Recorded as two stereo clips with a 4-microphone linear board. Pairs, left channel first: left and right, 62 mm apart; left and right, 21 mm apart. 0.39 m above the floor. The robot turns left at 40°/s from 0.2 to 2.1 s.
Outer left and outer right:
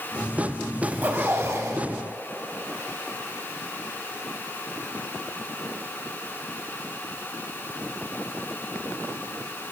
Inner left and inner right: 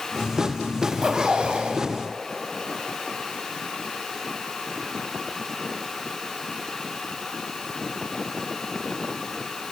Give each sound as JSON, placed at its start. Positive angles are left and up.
{"t": 0.8, "sound": "a zipper", "azimuth_deg": -25, "distance_m": 0.7}